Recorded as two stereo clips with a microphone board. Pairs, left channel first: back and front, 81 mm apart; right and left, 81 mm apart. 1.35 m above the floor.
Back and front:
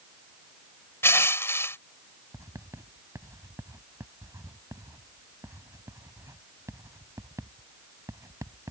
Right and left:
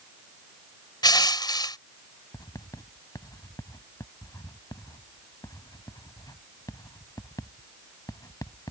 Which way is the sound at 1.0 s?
120° right.